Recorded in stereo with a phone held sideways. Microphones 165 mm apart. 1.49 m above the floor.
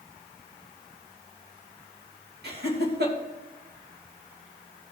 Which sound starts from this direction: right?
Laughter, at 2.4 s.